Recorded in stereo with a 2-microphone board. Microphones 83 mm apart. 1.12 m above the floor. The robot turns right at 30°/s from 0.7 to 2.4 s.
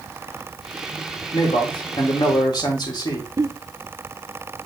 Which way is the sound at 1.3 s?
95° left.